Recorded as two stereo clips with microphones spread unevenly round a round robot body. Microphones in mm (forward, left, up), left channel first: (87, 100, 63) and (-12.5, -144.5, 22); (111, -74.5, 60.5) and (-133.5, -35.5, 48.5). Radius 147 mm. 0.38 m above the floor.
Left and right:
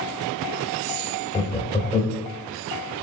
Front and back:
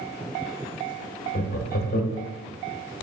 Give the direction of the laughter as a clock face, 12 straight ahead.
12 o'clock.